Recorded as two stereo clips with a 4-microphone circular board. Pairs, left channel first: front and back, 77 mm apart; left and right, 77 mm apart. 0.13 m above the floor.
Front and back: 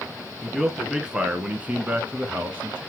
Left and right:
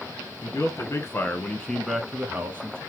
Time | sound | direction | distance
0.4 | a man speaking | 95° left | 1.5 m